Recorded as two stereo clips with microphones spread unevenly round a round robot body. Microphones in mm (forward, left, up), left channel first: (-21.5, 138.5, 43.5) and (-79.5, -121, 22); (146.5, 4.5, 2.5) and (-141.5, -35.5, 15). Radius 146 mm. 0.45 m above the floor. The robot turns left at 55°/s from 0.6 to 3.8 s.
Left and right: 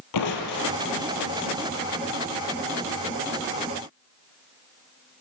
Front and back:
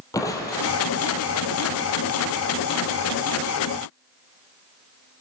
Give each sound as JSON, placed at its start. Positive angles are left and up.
{"t": 0.1, "sound": "crushing", "azimuth_deg": 90, "distance_m": 3.0}